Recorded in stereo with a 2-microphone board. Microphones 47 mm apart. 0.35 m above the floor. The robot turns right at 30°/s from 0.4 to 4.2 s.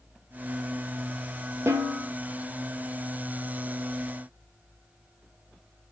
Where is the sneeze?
I don't hear a sneeze.